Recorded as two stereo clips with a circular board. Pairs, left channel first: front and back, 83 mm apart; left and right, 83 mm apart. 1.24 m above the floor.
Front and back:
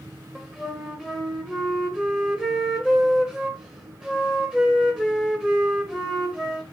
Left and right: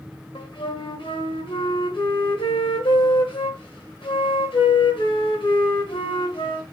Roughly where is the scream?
No scream in this recording.